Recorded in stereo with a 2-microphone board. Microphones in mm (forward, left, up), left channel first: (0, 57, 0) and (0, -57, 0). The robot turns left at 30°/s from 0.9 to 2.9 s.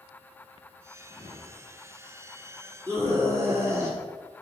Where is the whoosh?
65° left (ahead or behind), 3 m; by 1.8 s 85° left, 3 m.